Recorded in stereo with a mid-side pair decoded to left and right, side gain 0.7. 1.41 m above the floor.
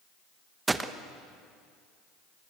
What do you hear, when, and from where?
0.7 s a gunshot: 15° right, 1.0 m